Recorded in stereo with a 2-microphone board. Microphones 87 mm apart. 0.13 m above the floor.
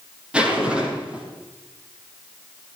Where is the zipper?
10° right (ahead or behind), 5 m.